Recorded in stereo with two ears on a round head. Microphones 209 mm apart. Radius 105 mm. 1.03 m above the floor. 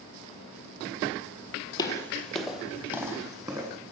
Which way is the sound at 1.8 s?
20° left (ahead or behind).